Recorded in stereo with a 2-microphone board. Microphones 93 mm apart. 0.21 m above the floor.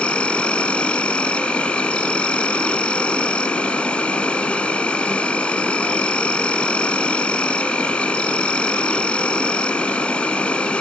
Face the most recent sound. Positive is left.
turn(degrees=10)  # may be behind; listen again after turning